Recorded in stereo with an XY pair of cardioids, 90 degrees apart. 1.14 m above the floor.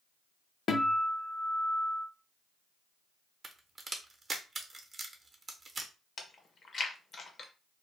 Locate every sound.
0.7 s a guitar: 60° left, 0.7 m
3.4 s a crack: 35° right, 0.8 m
6.2 s chewing: 50° left, 0.8 m